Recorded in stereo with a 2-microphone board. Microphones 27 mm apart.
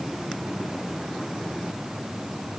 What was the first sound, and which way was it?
Only background noise.